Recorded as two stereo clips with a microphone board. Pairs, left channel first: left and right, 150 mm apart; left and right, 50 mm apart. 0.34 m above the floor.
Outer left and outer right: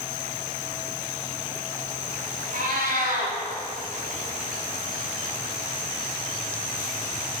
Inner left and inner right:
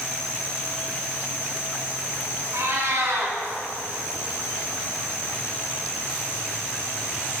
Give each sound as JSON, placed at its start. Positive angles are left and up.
{"t": 2.5, "sound": "a cat meowing", "side_deg": -70, "distance_m": 1.8}